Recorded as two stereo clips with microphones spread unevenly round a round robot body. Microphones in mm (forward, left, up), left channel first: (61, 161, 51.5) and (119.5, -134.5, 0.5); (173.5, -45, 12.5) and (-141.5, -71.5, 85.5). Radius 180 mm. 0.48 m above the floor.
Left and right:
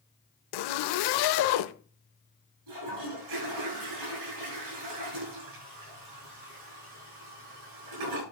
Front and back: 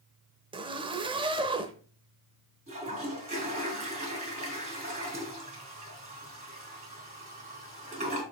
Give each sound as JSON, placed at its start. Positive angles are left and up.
{"t": 0.5, "sound": "a zipper", "azimuth_deg": 105, "distance_m": 0.8}
{"t": 2.7, "sound": "a toilet flushing", "azimuth_deg": -105, "distance_m": 6.0}